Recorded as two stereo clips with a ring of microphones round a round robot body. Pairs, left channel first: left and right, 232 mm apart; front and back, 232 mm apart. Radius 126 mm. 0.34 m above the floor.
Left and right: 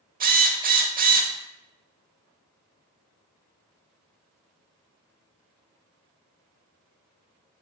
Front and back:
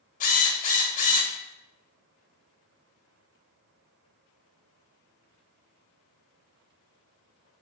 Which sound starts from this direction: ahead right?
A drill, at 0.2 s.